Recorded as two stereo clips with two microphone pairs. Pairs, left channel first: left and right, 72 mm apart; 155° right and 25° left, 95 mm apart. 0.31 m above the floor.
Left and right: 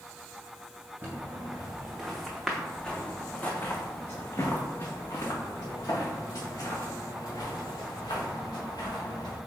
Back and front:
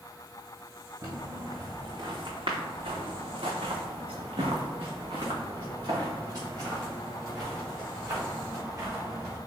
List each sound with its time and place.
1.0 s footsteps: 25° right, 1.6 m; by 9.4 s 85° left, 3.5 m